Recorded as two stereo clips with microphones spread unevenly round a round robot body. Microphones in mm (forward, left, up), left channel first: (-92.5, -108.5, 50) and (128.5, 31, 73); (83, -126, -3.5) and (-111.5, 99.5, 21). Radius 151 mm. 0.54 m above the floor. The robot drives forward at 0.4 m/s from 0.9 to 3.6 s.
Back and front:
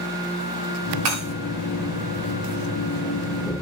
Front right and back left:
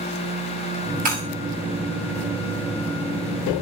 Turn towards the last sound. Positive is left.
turn(degrees=75)